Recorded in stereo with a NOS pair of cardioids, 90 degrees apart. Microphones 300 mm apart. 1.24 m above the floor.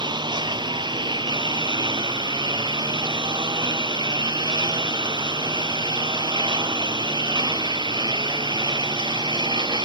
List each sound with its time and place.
0.0 s a lawn mower: 15° right